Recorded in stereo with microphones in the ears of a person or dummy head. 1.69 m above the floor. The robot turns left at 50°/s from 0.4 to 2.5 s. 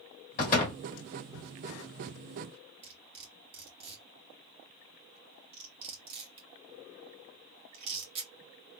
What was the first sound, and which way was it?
A door slam, 50° left (ahead or behind).